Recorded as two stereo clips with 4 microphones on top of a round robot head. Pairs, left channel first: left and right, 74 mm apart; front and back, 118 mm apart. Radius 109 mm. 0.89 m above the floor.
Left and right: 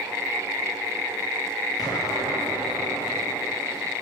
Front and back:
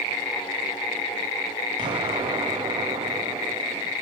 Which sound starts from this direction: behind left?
An explosion, at 1.8 s.